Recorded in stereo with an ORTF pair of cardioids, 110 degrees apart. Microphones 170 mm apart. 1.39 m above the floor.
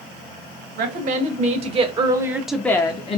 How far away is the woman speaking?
About 1.1 m.